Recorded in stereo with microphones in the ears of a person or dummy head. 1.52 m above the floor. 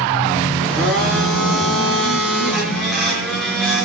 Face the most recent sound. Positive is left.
turn(degrees=0)  # may be behind; listen again after turning